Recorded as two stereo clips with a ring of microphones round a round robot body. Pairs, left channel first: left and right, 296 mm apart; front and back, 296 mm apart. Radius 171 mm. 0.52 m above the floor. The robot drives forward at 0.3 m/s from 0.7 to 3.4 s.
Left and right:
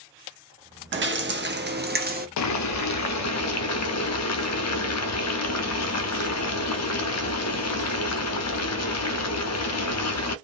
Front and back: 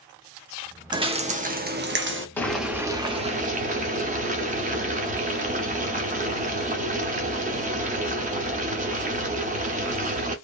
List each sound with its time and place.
0.9 s dripping: 110° right, 0.7 m; by 2.3 s 145° right, 0.9 m
2.4 s boiling: 80° left, 0.6 m; by 10.4 s 120° left, 0.6 m